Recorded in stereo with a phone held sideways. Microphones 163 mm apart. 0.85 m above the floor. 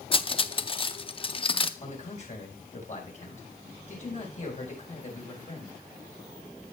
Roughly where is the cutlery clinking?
Left.